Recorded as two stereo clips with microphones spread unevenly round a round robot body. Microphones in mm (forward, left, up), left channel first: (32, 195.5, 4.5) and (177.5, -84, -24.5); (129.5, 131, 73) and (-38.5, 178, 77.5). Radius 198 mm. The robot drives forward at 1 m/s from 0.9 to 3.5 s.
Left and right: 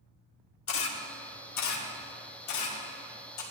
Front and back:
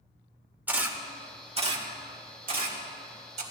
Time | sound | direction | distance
0.7 | a camera shutter | 85° left | 1.5 m